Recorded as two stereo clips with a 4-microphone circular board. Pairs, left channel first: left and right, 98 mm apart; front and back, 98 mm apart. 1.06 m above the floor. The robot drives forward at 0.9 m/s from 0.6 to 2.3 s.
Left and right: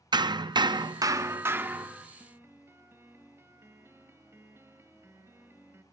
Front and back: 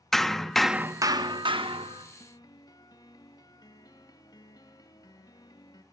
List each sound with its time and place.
0.1 s hammering: 85° right, 0.5 m; by 2.0 s 165° right, 1.4 m
2.2 s a piano: 30° right, 1.3 m